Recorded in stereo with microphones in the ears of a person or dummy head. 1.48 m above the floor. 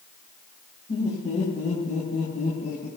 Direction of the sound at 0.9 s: 40° left (ahead or behind).